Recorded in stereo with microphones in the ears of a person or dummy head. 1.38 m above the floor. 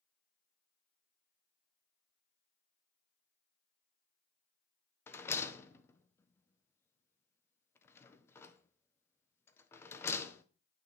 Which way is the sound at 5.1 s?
15° left (ahead or behind).